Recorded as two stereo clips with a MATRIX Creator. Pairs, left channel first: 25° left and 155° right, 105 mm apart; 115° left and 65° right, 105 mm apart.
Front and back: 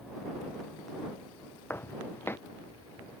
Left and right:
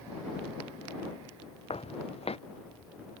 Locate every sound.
1.7 s footsteps: 90° left